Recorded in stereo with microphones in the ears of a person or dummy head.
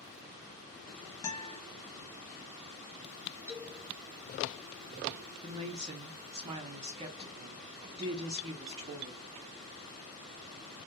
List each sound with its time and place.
1.2 s a guitar: 20° left (ahead or behind), 0.5 m
3.5 s a man speaking: 5° left (ahead or behind), 1.0 m
5.4 s a woman speaking: 30° right (ahead or behind), 0.5 m